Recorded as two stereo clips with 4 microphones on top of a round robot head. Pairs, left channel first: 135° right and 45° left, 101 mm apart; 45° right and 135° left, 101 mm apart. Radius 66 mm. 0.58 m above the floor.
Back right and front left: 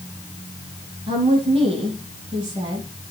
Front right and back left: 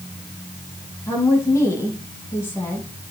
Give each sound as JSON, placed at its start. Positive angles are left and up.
{"t": 1.1, "sound": "a woman speaking", "azimuth_deg": 15, "distance_m": 7.0}